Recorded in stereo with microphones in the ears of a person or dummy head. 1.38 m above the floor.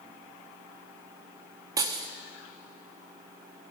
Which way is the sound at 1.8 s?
25° right (ahead or behind).